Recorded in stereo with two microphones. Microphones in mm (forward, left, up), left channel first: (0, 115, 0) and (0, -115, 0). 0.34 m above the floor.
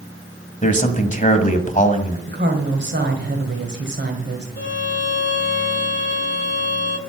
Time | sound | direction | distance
0.6 | a man speaking | 35° left (ahead or behind) | 1.6 m
2.3 | a woman speaking | 50° right (ahead or behind) | 1.9 m
4.6 | a violin | 55° left (ahead or behind) | 0.9 m